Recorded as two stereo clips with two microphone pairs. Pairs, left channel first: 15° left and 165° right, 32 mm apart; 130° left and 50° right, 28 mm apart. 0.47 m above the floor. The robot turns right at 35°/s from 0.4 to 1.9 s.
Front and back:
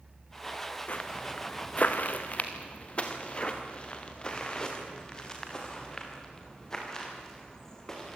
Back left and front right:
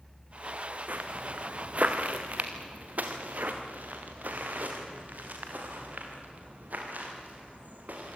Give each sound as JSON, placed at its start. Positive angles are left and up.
{"t": 0.9, "sound": "footsteps", "azimuth_deg": -30, "distance_m": 1.7}